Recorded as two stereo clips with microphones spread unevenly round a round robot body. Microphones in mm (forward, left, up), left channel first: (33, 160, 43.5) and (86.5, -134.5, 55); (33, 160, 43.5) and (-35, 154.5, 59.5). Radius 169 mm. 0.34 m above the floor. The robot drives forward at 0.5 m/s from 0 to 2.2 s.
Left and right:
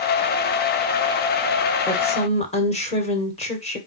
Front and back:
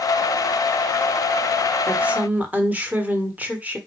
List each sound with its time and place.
1.9 s a woman speaking: 100° left, 1.3 m; by 3.8 s 120° left, 1.3 m